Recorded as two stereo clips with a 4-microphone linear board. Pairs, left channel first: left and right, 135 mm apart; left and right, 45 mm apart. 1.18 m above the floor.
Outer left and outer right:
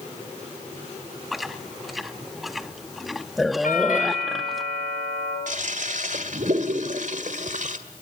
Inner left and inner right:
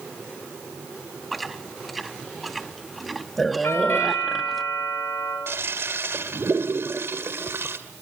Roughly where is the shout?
I don't hear a shout.